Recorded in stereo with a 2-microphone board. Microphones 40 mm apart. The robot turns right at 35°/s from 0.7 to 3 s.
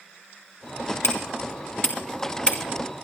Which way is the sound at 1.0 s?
85° left.